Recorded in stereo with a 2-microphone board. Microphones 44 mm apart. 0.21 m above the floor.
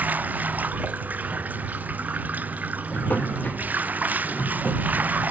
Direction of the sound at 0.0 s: 40° right (ahead or behind).